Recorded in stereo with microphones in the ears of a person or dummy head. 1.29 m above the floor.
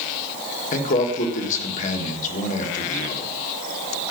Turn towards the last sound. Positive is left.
turn(degrees=40)  # may be behind; listen again after turning